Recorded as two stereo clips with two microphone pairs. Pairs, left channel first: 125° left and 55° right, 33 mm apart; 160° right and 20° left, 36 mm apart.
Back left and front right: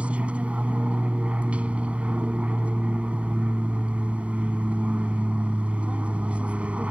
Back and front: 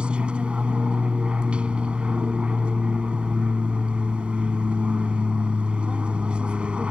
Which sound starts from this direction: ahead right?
An aircraft, at 0.0 s.